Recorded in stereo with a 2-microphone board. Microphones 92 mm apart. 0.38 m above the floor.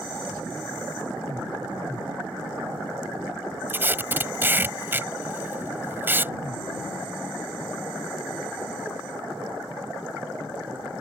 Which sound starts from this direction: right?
Tape being pulled, at 3.7 s.